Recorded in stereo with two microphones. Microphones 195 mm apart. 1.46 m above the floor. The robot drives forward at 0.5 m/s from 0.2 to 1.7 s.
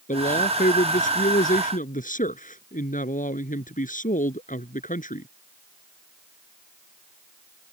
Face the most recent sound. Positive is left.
turn(degrees=45)  # may be behind; listen again after turning